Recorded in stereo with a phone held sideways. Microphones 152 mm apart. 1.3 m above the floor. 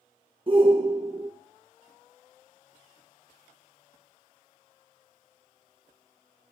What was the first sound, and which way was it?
A shout, 35° right (ahead or behind).